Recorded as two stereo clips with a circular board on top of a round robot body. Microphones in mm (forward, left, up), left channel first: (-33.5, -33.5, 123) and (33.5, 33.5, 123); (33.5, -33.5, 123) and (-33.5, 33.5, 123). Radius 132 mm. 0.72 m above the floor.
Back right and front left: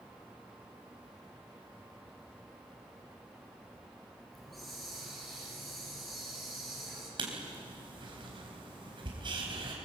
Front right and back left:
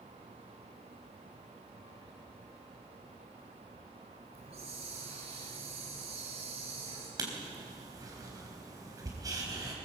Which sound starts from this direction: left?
Writing, at 7.2 s.